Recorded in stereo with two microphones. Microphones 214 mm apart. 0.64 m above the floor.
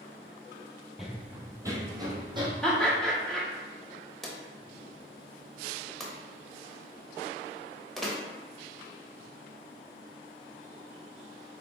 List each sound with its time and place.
1.0 s running footsteps: centre (ahead or behind), 0.6 m; by 2.5 s 20° right (ahead or behind), 1.4 m
2.6 s laughter: 5° left (ahead or behind), 1.1 m
4.2 s a drawer: centre (ahead or behind), 0.8 m